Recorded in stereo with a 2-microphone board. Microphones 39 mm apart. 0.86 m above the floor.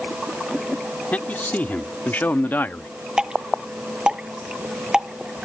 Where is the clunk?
I don't hear a clunk.